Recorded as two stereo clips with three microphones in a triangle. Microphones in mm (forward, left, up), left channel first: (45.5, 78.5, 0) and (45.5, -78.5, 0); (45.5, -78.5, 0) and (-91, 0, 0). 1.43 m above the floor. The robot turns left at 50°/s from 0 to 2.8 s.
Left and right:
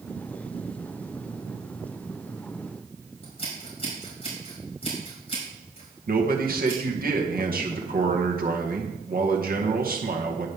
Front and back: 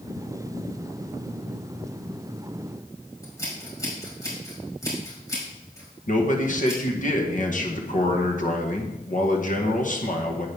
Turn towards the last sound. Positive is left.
turn(degrees=-65)